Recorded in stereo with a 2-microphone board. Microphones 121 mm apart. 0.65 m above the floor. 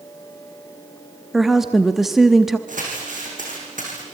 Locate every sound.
1.3 s a woman speaking: centre (ahead or behind), 0.8 m
2.7 s crumpling: 80° right, 7 m